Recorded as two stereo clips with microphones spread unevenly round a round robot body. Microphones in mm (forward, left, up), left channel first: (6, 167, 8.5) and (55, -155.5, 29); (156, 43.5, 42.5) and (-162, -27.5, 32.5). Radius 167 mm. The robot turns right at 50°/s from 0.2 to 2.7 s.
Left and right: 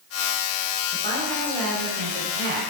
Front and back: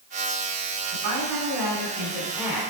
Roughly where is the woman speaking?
Behind right.